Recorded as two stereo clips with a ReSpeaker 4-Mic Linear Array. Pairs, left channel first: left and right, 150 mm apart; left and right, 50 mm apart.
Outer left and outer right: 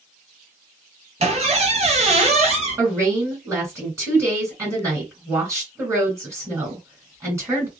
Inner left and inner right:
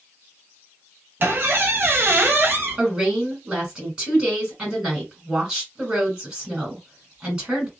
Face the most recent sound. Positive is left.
turn(degrees=-15)  # may be behind; listen again after turning